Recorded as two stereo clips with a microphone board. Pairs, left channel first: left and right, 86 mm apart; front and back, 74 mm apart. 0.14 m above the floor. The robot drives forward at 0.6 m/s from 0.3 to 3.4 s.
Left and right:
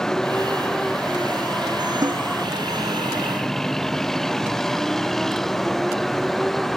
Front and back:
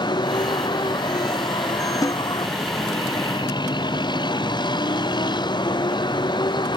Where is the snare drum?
40° right.